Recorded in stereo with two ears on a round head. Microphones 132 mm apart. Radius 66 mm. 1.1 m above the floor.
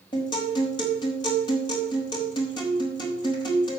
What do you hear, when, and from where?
0.1 s a guitar: 30° left (ahead or behind), 5 m